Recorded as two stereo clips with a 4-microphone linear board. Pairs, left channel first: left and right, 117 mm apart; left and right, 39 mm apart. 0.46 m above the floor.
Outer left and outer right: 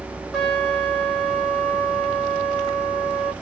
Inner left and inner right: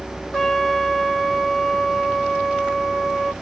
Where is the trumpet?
Centre (ahead or behind), 1.8 m.